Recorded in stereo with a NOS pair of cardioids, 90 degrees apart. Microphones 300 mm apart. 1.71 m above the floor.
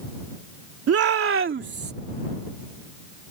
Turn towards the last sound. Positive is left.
turn(degrees=-30)